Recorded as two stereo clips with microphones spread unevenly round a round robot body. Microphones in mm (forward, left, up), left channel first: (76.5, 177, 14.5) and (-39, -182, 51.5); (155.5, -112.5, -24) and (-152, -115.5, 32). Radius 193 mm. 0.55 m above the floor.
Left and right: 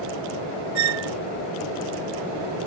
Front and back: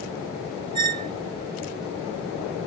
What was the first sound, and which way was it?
A squeak, 105° right.